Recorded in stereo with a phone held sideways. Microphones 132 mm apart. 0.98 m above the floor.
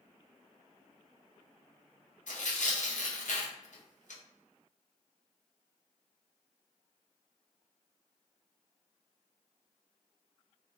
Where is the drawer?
I don't hear a drawer.